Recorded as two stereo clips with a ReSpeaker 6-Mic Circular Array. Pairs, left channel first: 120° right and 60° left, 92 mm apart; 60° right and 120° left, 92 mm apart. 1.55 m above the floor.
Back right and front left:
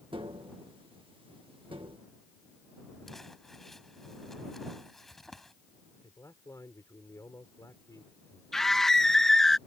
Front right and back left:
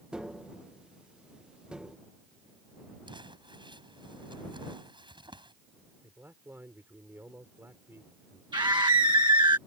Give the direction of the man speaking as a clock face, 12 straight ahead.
6 o'clock.